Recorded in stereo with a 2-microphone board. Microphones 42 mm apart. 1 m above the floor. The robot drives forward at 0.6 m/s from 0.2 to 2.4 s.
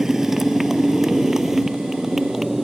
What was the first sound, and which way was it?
A motorcycle, 10° right (ahead or behind).